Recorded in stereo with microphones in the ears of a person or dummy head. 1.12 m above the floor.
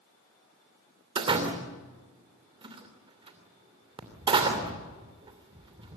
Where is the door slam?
25° right (ahead or behind), 2.5 m.